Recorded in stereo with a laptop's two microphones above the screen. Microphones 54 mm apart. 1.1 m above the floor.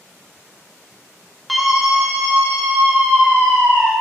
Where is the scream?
Centre (ahead or behind), 1.4 m; by 3.9 s 80° right, 3.5 m.